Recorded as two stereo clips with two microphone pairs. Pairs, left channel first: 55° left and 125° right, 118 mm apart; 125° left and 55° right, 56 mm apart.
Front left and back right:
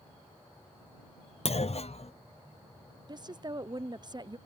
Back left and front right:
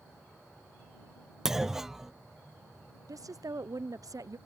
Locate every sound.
1.4 s a clunk: 30° left
3.1 s a woman speaking: 65° right